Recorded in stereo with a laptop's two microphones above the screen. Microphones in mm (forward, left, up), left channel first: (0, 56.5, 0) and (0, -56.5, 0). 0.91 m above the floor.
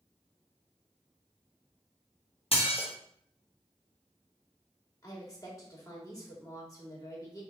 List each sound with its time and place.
2.5 s dishes clattering: 55° left (ahead or behind), 0.9 m
5.0 s a woman speaking: 30° left (ahead or behind), 1.6 m